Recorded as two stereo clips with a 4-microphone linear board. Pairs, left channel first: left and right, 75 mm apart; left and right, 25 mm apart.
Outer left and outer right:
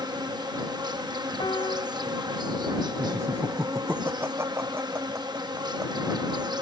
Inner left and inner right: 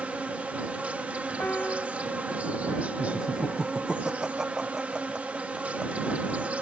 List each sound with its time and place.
0.0 s an insect: 65° right (ahead or behind)
1.4 s a piano: 80° left
3.0 s laughter: 30° right (ahead or behind)